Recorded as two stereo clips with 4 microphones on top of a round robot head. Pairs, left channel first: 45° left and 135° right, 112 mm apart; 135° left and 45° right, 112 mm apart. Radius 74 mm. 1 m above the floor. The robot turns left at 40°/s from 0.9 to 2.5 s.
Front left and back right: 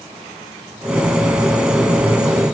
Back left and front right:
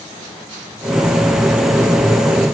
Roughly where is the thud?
No thud in this recording.